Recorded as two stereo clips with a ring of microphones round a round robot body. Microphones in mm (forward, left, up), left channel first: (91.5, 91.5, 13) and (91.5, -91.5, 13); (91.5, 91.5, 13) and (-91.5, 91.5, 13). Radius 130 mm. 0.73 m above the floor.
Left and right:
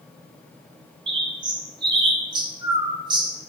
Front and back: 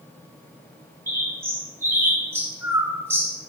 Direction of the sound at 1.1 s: 115° right.